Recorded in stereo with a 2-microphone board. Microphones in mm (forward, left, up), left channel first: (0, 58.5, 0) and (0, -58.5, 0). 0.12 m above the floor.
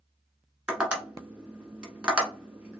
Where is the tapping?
10° right (ahead or behind), 1.4 m.